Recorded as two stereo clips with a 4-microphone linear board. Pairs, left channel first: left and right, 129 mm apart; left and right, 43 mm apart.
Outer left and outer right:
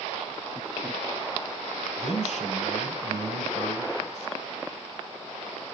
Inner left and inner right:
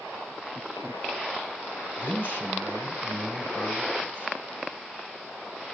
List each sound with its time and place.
2.0 s a man speaking: 50° left (ahead or behind), 5 m